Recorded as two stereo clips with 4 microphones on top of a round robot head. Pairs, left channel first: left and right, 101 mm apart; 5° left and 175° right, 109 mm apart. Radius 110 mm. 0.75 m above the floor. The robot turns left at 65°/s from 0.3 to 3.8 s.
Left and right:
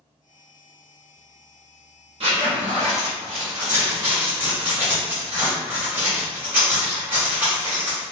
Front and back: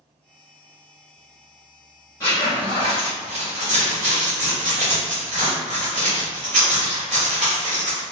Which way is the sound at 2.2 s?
65° right.